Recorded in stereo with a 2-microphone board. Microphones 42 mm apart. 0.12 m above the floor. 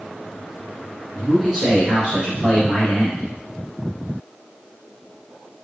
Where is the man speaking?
5° right (ahead or behind), 1.8 m; by 3.3 s 40° left (ahead or behind), 2 m.